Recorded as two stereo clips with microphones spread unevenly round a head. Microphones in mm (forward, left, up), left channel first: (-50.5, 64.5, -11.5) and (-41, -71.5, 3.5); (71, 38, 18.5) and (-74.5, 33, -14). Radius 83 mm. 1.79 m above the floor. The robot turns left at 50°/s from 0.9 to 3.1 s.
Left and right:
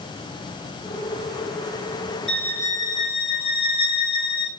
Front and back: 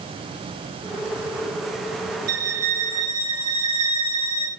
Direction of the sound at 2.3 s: Straight behind.